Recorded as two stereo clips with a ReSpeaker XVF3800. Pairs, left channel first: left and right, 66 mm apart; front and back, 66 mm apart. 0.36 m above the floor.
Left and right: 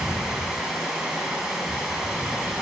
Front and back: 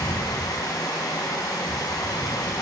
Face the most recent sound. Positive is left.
turn(degrees=-10)